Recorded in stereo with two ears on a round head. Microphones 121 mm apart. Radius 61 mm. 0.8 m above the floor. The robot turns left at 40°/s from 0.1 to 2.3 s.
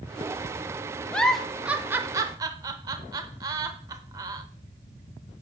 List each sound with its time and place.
1.1 s a giggle: 10° left (ahead or behind), 0.6 m; by 4.4 s 25° right (ahead or behind), 0.6 m